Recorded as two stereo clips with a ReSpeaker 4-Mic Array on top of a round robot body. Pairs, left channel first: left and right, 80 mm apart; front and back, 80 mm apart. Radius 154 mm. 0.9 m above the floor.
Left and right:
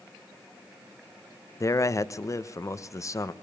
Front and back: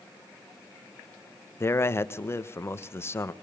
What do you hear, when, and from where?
1.6 s a man speaking: 50° left, 1.3 m